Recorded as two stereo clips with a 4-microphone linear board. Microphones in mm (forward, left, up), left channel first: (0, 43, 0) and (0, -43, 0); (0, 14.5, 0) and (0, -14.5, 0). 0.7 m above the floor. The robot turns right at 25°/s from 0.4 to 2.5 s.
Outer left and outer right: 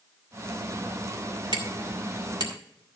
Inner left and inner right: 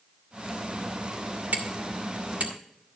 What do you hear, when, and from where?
1.5 s hammering: 65° right (ahead or behind), 1.8 m; by 3.0 s 55° right (ahead or behind), 1.8 m